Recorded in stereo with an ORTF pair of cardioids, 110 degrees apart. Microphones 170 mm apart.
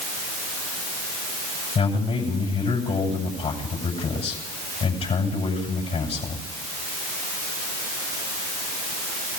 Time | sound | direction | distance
1.8 | a man speaking | 40° left | 7.5 m